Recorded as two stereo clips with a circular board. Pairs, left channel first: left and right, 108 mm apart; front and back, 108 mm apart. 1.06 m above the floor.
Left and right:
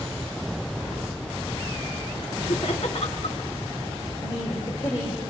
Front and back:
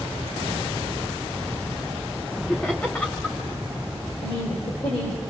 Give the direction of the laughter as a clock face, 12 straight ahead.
9 o'clock.